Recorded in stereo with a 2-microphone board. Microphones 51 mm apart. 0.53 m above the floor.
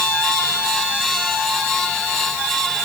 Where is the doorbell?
I don't hear a doorbell.